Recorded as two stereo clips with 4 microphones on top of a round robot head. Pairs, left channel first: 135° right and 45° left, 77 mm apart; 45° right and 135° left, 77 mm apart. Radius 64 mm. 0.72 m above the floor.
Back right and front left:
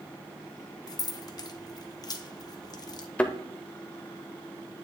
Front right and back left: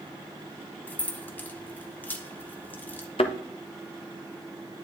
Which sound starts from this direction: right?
Keys jangling, at 0.9 s.